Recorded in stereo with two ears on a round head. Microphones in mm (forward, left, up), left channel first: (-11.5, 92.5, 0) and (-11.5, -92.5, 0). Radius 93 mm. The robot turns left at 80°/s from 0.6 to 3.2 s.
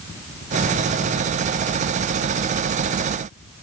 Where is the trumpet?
I don't hear a trumpet.